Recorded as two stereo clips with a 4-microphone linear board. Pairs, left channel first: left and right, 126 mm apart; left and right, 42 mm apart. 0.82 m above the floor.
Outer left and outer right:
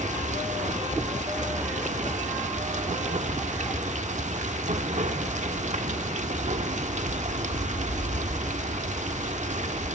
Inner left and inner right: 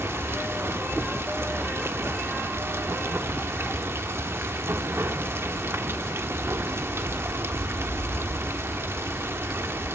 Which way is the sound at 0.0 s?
70° right (ahead or behind).